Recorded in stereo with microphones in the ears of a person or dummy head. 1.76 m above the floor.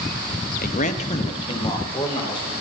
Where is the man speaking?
50° left (ahead or behind), 0.9 m; by 2.5 s 25° left (ahead or behind), 3.5 m.